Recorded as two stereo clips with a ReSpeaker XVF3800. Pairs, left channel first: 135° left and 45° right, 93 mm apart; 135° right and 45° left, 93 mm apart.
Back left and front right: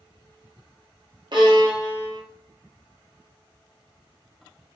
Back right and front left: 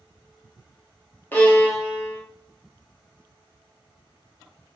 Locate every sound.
1.3 s a violin: 70° right, 0.9 m